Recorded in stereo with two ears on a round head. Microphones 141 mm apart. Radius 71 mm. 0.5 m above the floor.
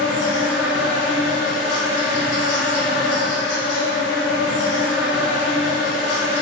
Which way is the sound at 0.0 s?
80° left.